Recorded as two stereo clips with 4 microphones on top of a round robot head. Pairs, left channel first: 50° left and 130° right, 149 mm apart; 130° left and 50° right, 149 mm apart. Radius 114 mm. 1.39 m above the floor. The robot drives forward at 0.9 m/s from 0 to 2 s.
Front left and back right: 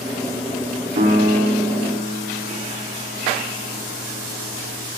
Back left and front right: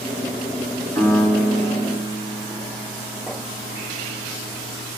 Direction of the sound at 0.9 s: 160° right.